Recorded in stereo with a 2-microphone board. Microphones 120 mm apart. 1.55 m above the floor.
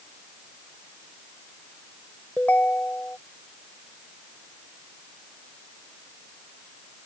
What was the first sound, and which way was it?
A ringtone, 10° left (ahead or behind).